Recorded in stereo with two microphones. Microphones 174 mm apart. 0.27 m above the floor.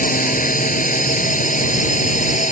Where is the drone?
50° left (ahead or behind); by 2.5 s 45° left (ahead or behind).